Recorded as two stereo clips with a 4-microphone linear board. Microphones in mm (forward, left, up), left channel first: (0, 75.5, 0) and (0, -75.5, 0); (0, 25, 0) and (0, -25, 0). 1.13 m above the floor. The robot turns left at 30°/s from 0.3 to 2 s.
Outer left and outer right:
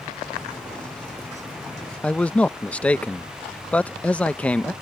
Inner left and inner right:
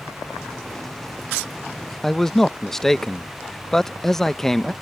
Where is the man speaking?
10° left (ahead or behind).